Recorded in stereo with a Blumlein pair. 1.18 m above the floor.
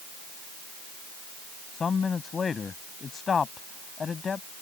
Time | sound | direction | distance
1.7 | a man speaking | 15° left | ?